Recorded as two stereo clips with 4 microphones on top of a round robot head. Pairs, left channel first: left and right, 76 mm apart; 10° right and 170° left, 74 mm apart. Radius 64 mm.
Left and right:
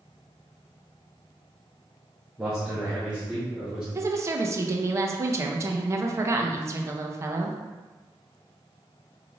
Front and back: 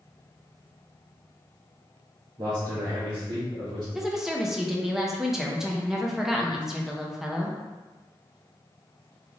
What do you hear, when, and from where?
2.4 s a man speaking: 170° right, 1.0 m; by 3.9 s 175° left, 2 m
4.0 s a woman speaking: 110° right, 0.7 m